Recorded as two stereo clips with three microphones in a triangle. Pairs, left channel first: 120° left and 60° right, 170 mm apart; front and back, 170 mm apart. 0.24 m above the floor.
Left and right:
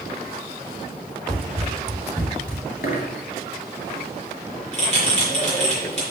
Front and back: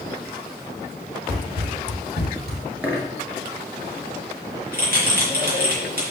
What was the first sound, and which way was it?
Running footsteps, 155° right.